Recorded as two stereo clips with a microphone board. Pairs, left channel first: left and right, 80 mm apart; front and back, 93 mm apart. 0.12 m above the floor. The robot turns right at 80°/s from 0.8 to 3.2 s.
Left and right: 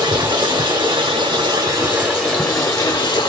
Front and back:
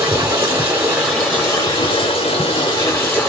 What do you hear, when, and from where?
0.0 s running water: 115° right, 1.2 m; by 3.3 s 75° left, 1.2 m